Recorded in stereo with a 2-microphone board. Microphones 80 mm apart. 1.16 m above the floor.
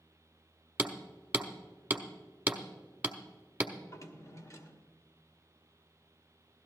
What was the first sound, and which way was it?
Hammering, 20° right (ahead or behind).